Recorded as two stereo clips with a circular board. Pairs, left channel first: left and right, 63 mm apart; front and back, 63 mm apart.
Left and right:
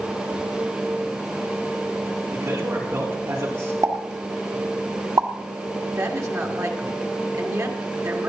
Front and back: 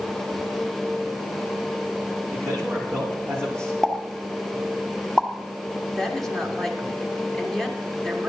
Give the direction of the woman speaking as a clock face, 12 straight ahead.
3 o'clock.